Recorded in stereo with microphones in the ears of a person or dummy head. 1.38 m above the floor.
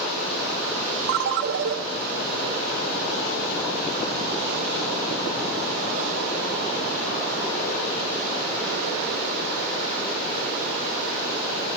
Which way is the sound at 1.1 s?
55° right (ahead or behind).